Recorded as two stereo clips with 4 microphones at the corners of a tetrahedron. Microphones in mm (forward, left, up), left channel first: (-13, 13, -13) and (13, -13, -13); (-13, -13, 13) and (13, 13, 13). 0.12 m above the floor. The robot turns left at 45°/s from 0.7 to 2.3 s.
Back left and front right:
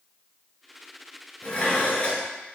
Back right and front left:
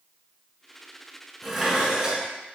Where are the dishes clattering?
135° left, 0.9 m; by 2.3 s 95° left, 0.9 m.